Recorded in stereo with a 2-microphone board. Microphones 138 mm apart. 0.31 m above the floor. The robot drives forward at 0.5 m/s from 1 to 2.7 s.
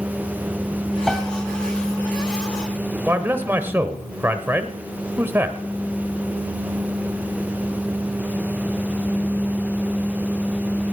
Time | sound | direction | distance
1.1 | a piano | centre (ahead or behind) | 1.6 m
3.1 | a man speaking | 15° right (ahead or behind) | 0.9 m